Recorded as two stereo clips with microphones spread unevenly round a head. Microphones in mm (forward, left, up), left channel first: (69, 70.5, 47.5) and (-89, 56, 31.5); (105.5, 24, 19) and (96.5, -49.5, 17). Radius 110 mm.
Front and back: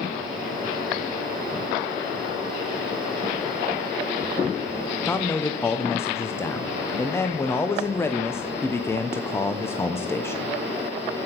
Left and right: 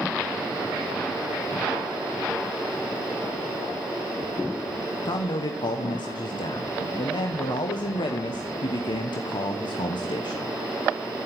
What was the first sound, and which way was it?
A man speaking, 85° left.